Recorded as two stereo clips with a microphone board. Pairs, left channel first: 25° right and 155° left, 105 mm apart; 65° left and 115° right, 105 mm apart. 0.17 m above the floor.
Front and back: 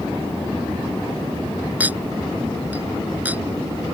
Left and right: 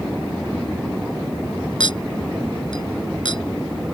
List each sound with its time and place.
1.8 s a clink: 85° left